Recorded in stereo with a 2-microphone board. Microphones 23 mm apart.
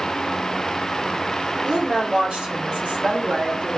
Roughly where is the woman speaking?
Right.